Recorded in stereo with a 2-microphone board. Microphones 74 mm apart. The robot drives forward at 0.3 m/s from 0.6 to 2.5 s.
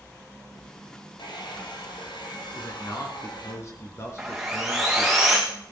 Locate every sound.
1.2 s a hair dryer: 80° left, 3 m
2.5 s a man speaking: 40° left (ahead or behind), 3 m
4.2 s sawing: centre (ahead or behind), 3 m